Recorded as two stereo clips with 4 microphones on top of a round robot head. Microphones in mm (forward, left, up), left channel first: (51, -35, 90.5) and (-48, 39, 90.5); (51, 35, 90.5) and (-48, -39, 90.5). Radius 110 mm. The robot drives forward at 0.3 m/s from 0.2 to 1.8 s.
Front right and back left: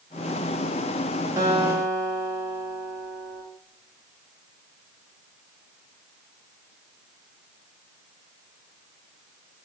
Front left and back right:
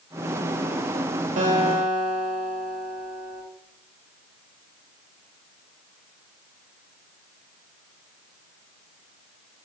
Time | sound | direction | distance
1.4 | a guitar | 150° right | 3.5 m